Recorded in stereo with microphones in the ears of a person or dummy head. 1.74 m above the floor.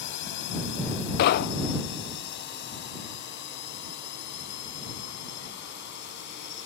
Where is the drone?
60° left (ahead or behind); by 6.7 s 55° left (ahead or behind).